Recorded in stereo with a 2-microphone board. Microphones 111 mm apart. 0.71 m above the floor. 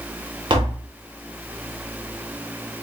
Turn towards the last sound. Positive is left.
turn(degrees=-45)  # may be behind; listen again after turning